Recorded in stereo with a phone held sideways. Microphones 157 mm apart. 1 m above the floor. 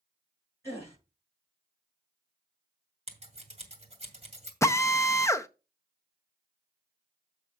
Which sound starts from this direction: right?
Scissors, at 3.1 s.